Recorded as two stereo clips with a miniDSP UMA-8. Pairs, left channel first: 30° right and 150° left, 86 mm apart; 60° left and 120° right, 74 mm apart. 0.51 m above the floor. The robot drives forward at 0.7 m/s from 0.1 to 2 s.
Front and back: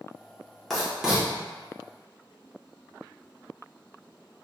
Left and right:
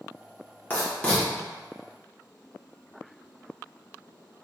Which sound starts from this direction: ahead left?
Writing, at 0.7 s.